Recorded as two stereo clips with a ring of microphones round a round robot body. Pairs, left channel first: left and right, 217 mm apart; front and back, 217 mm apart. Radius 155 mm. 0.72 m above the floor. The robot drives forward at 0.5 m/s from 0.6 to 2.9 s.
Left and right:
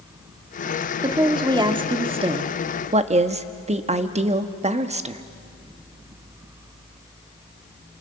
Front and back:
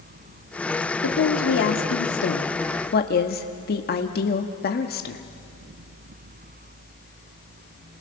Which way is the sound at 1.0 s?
20° right.